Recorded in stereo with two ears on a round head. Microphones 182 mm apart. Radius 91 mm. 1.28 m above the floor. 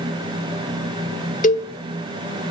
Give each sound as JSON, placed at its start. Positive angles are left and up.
{"t": 1.4, "sound": "a cowbell", "side_deg": 40, "distance_m": 1.1}